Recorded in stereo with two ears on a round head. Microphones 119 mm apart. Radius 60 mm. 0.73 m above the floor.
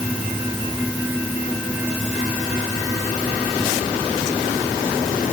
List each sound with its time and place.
Only background noise.